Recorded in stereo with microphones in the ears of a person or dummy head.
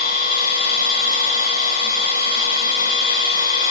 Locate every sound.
0.0 s a machine running: 75° left (ahead or behind), 4.5 m